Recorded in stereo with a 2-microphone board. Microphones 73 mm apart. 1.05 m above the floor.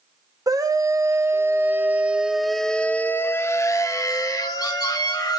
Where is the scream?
55° right (ahead or behind), 1.5 m; by 5.4 s 65° left (ahead or behind), 1.8 m.